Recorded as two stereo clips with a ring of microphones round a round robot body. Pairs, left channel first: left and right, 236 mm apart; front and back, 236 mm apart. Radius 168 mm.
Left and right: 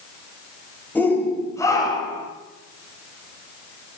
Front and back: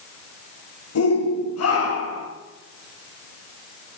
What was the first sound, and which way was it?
A shout, 10° left.